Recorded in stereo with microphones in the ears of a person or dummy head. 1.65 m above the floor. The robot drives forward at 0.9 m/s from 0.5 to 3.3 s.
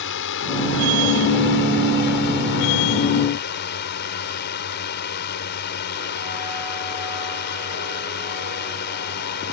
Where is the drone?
55° left (ahead or behind); by 9.5 s 50° left (ahead or behind).